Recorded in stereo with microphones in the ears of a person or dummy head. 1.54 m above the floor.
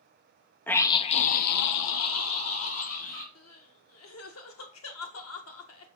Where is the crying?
85° left, 1.4 m.